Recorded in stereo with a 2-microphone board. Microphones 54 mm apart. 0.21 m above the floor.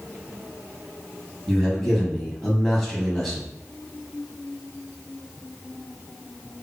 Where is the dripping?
No dripping in this recording.